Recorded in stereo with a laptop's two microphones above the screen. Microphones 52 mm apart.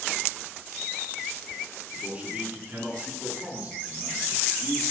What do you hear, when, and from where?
1.9 s a man speaking: 25° right (ahead or behind), 9 m; by 4.8 s 35° right (ahead or behind), 10 m